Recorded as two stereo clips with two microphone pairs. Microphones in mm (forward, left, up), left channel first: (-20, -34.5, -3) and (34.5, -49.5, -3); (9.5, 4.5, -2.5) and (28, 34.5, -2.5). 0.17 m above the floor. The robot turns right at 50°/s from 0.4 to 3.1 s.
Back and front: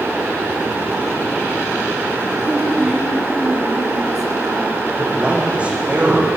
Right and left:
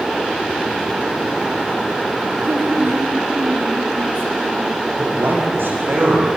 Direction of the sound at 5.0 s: 55° left.